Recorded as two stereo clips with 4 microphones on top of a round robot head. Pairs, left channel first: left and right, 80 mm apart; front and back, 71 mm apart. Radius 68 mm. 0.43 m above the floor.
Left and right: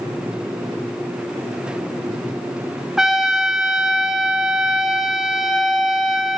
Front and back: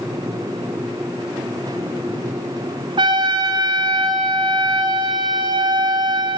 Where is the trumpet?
175° right, 2 m.